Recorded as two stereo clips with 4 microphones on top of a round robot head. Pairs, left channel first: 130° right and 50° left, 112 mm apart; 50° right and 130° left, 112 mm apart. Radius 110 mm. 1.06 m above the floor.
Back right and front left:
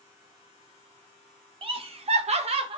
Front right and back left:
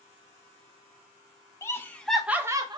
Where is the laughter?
10° left, 0.8 m; by 2.8 s 85° left, 0.7 m.